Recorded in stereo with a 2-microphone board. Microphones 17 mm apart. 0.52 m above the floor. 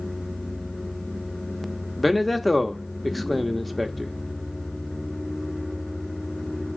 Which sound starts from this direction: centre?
A man speaking, at 2.0 s.